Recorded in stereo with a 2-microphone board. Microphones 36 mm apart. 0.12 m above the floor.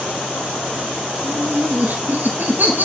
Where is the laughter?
60° right (ahead or behind), 5 m.